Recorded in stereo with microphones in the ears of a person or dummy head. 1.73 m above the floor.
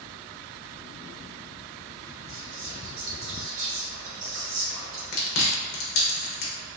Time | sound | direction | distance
2.3 | whispering | 70° right (ahead or behind) | 1.0 m
5.1 | chewing | 50° left (ahead or behind) | 0.8 m